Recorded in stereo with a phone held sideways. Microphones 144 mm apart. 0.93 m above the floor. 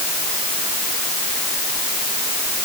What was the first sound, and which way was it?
Only background noise.